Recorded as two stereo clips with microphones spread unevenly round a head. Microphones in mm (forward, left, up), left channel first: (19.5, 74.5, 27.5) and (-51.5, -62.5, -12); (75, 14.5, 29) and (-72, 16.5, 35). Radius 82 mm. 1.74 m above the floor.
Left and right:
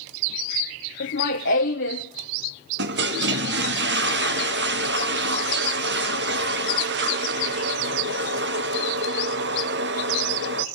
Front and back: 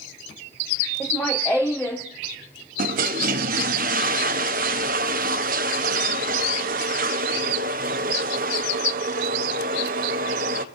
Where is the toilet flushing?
140° right, 1.2 m.